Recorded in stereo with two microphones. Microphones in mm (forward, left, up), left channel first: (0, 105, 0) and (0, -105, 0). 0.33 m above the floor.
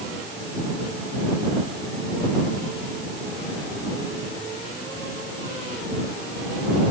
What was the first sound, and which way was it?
Only background noise.